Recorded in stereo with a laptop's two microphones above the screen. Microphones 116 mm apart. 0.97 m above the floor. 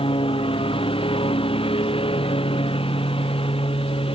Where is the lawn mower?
50° left (ahead or behind).